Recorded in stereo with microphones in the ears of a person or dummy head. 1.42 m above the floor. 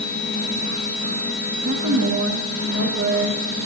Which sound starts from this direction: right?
A woman speaking, at 1.6 s.